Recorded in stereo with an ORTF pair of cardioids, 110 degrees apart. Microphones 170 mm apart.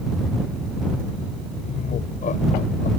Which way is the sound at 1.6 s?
45° left.